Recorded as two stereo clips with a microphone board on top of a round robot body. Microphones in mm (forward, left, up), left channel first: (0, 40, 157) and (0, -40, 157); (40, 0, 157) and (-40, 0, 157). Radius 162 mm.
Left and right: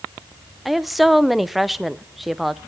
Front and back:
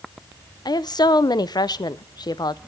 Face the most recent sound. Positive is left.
turn(degrees=0)